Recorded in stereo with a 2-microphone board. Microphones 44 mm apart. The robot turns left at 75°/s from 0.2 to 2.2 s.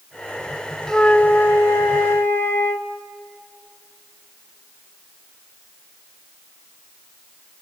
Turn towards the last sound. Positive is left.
turn(degrees=70)